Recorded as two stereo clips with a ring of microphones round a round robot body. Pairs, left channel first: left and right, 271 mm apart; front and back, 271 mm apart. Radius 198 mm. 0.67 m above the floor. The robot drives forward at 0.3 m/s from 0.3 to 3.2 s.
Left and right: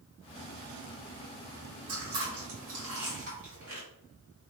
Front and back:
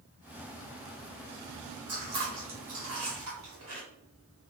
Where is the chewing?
135° right, 1.0 m; by 3.8 s 150° right, 1.3 m.